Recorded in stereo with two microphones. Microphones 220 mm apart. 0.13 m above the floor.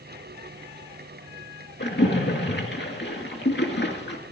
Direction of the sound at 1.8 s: 50° left (ahead or behind).